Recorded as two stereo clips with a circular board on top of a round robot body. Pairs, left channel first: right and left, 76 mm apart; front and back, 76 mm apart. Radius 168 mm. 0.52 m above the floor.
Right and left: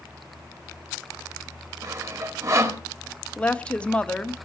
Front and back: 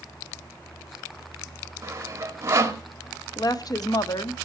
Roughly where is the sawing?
Behind left.